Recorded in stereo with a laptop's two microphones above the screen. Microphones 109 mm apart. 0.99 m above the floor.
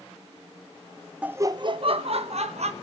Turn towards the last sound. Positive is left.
turn(degrees=-70)  # may be behind; listen again after turning